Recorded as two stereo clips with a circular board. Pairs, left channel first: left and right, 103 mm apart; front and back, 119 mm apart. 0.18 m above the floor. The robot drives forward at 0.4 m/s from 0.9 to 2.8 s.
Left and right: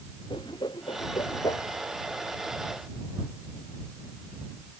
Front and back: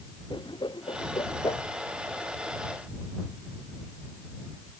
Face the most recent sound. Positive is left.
turn(degrees=55)